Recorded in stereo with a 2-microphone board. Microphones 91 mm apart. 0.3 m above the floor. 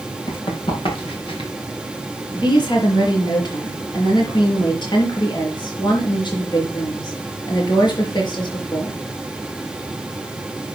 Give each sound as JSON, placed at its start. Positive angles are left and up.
{"t": 0.3, "sound": "running footsteps", "side_deg": 60, "distance_m": 5.5}
{"t": 2.3, "sound": "a woman speaking", "side_deg": 50, "distance_m": 5.0}